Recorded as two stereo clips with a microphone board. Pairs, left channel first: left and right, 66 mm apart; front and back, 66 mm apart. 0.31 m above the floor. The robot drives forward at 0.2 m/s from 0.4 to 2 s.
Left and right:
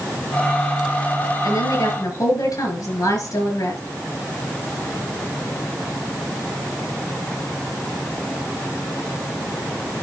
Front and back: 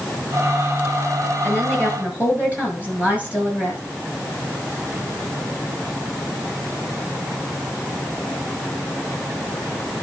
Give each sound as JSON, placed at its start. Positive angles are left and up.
{"t": 1.4, "sound": "a woman speaking", "azimuth_deg": 110, "distance_m": 6.0}